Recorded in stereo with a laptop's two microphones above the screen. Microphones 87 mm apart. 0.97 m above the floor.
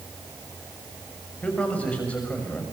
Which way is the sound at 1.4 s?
15° left (ahead or behind).